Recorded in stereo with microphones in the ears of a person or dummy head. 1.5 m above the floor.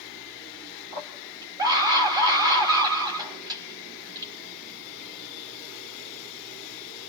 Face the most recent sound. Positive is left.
turn(degrees=-25)  # may be behind; listen again after turning